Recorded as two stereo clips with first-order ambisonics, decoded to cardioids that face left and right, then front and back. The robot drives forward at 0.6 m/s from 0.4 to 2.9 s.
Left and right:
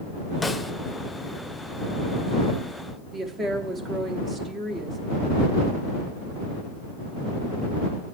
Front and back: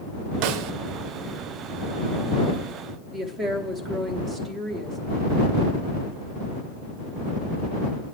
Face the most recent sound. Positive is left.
turn(degrees=-135)